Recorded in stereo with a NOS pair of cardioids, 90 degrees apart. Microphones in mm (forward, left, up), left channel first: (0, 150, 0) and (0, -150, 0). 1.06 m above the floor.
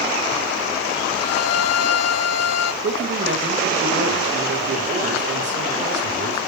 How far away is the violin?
About 1.1 m.